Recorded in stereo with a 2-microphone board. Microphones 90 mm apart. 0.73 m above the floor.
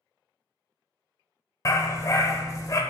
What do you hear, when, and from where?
1.6 s a dog barking: 40° left (ahead or behind), 0.9 m